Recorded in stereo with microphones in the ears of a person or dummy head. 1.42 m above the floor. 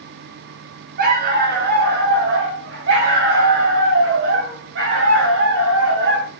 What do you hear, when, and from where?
1.0 s a dog barking: 60° right (ahead or behind), 2 m; by 6.3 s 80° right, 4.5 m